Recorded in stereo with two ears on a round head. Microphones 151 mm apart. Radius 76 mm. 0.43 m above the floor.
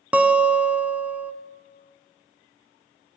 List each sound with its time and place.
0.1 s a guitar: 10° right (ahead or behind), 0.5 m